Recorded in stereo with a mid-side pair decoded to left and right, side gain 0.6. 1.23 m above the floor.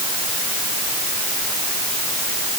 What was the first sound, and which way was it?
Only background noise.